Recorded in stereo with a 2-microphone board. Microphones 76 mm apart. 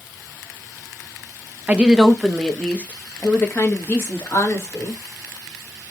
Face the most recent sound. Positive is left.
turn(degrees=40)  # may be behind; listen again after turning